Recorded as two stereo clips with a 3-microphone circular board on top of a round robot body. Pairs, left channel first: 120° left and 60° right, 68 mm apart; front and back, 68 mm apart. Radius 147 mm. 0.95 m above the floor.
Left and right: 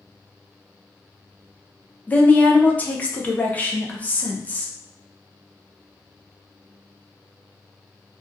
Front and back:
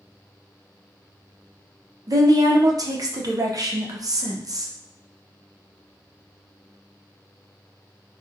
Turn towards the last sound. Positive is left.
turn(degrees=-175)